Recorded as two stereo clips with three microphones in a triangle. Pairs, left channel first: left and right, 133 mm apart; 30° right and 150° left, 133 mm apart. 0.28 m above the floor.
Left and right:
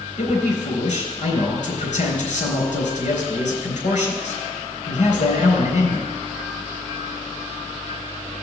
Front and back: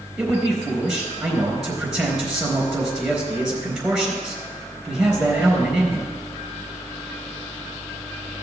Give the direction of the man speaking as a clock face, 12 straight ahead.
10 o'clock.